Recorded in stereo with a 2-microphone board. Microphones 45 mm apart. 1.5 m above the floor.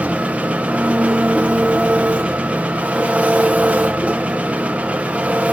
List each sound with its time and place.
0.0 s an engine running: 30° right (ahead or behind), 0.9 m